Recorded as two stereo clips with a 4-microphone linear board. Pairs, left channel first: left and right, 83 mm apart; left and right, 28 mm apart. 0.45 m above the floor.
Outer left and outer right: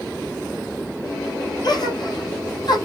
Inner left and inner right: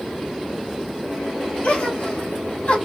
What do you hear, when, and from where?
1.6 s a gasp: 55° left (ahead or behind), 3.5 m